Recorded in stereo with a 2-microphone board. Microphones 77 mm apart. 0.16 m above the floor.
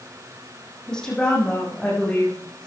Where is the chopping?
No chopping in this recording.